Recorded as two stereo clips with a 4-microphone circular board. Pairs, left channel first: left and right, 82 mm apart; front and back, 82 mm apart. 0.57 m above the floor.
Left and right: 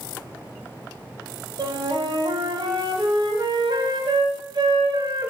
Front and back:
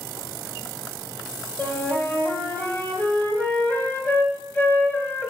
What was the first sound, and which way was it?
A flute, 70° right.